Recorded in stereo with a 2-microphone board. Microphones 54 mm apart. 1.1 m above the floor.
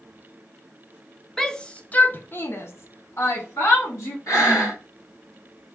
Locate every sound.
1.4 s a shout: 5° left (ahead or behind), 0.8 m; by 4.2 s 65° left (ahead or behind), 1.5 m
4.3 s breathing: 70° left (ahead or behind), 2.5 m